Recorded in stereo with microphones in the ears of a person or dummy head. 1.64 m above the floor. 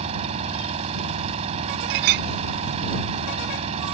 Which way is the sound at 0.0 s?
45° right (ahead or behind).